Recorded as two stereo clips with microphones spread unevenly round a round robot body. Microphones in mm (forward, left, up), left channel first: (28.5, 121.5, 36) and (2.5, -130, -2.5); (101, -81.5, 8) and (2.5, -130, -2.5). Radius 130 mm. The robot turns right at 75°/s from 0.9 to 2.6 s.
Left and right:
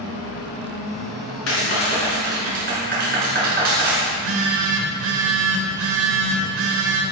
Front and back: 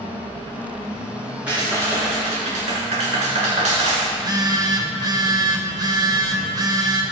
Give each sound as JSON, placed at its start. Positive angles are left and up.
{"t": 1.5, "sound": "a clap", "azimuth_deg": 120, "distance_m": 5.5}
{"t": 4.1, "sound": "a phone buzzing", "azimuth_deg": -110, "distance_m": 2.5}